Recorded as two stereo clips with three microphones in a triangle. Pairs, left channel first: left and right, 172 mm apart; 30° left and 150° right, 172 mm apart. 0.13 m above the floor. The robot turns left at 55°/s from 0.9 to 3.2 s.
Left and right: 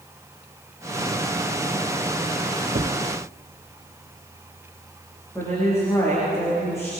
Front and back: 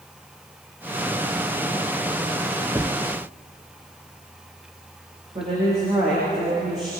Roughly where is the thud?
Right.